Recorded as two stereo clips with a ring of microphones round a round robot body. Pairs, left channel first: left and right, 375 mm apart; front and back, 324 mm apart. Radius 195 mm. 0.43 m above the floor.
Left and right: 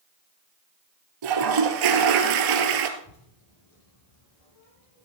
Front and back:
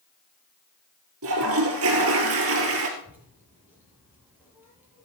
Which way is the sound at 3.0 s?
95° left.